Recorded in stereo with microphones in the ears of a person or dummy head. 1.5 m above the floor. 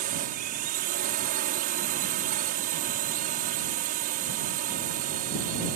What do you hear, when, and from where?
0.0 s a drone: 45° right (ahead or behind)